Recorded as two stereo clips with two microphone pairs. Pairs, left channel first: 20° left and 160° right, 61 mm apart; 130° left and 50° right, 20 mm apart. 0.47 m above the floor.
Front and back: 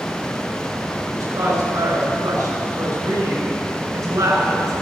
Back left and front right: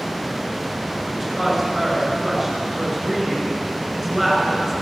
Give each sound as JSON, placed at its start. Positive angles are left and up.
{"t": 1.1, "sound": "a woman speaking", "azimuth_deg": -145, "distance_m": 6.0}